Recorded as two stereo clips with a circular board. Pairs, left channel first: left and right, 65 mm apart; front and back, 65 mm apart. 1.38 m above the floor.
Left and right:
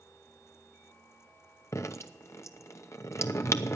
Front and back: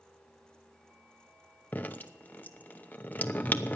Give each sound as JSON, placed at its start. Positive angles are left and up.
{"t": 1.7, "sound": "dripping", "azimuth_deg": 60, "distance_m": 0.8}